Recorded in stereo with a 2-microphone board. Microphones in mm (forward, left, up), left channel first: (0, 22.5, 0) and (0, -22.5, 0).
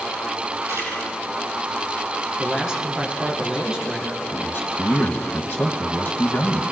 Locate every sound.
0.7 s a camera shutter: 80° right, 8.5 m
2.4 s a man speaking: 10° right (ahead or behind), 4.5 m
4.3 s a man speaking: 50° left (ahead or behind), 1.5 m